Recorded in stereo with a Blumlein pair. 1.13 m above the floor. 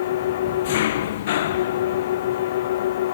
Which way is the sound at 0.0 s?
55° left.